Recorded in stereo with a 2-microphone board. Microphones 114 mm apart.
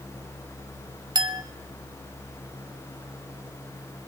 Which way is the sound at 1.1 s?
40° right (ahead or behind).